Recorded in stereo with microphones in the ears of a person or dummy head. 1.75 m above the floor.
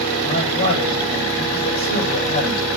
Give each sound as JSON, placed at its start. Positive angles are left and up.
{"t": 0.2, "sound": "a man speaking", "side_deg": 40, "distance_m": 9.0}